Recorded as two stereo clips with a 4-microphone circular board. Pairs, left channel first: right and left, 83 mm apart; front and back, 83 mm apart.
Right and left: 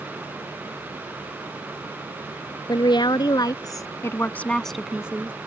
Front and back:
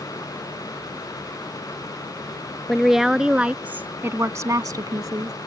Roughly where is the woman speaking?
Right.